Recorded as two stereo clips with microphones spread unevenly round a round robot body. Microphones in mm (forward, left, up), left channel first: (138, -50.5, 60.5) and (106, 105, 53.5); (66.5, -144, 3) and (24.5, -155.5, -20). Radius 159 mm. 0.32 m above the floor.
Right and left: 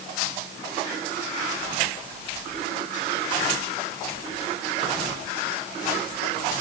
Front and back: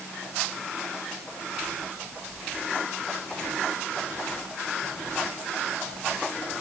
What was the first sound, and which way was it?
Only background noise.